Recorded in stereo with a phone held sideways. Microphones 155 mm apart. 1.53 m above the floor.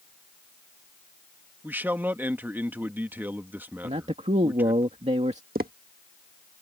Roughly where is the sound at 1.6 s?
Centre.